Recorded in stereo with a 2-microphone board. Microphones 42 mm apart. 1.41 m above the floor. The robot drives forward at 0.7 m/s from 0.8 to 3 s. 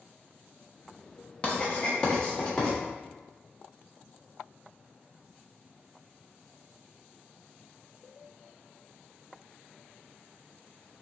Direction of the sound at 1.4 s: 30° left (ahead or behind).